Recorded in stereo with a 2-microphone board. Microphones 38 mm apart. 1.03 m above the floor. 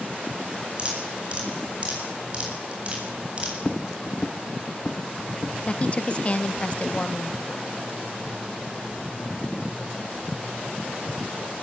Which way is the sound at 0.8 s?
30° right (ahead or behind).